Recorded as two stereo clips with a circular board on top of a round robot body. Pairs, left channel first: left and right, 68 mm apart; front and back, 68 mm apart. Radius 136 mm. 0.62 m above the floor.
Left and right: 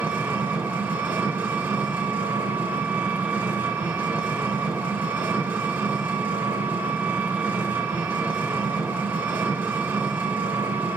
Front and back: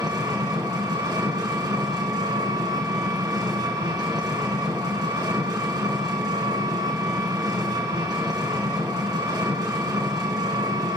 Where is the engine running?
155° right, 1.9 m.